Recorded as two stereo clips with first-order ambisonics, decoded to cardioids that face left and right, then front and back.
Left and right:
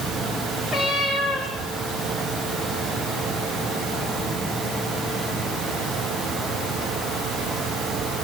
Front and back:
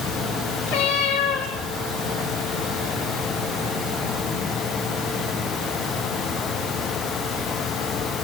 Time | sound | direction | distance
0.7 | a cat meowing | 15° right | 4 m